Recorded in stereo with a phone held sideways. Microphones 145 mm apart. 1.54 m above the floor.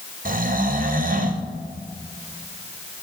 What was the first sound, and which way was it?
Snoring, 75° right (ahead or behind).